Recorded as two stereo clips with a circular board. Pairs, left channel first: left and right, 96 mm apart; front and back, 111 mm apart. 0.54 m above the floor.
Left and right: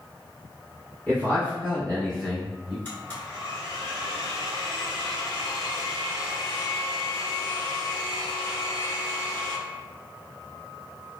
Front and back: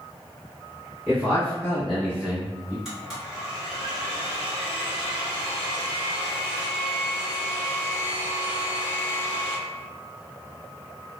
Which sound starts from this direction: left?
A blender, at 2.9 s.